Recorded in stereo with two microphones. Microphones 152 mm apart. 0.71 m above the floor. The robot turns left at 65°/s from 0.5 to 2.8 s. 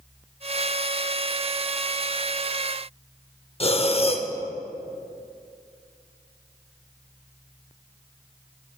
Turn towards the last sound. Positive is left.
turn(degrees=40)  # may be behind; listen again after turning